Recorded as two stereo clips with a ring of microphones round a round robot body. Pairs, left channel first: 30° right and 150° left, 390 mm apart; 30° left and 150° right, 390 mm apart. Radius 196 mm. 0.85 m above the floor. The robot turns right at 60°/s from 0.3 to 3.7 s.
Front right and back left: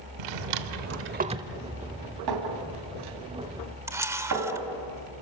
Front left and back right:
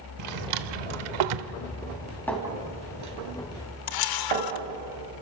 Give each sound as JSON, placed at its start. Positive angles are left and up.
{"t": 0.2, "sound": "a drawer", "azimuth_deg": 165, "distance_m": 1.0}
{"t": 2.3, "sound": "a clink", "azimuth_deg": 115, "distance_m": 3.5}
{"t": 3.9, "sound": "a camera shutter", "azimuth_deg": 65, "distance_m": 1.2}